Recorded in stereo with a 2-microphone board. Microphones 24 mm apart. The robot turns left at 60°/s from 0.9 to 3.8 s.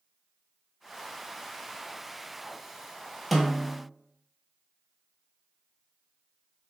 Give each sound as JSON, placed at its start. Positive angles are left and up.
{"t": 3.3, "sound": "a snare drum", "side_deg": 0, "distance_m": 0.7}